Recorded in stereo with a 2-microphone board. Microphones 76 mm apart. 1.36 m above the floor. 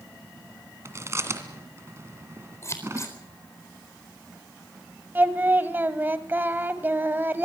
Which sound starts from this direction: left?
Scissors, at 2.6 s.